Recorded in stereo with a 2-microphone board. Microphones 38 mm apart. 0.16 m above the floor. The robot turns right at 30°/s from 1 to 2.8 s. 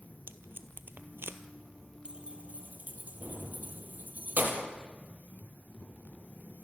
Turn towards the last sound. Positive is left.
turn(degrees=-40)  # may be behind; listen again after turning